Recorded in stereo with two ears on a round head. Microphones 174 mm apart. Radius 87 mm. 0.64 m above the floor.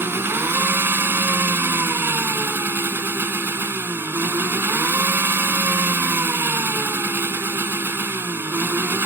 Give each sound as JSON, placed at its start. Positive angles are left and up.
{"t": 0.0, "sound": "an engine running", "side_deg": -10}